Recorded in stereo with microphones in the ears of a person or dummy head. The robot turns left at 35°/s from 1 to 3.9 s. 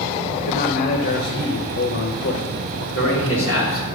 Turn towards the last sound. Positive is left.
turn(degrees=75)